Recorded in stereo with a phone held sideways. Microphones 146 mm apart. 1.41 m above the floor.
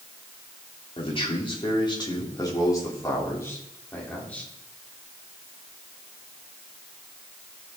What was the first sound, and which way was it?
A man speaking, 40° left (ahead or behind).